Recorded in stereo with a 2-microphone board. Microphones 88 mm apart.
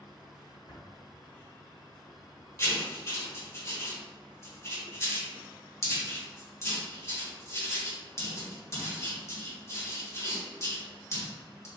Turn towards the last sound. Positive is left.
turn(degrees=35)  # may be behind; listen again after turning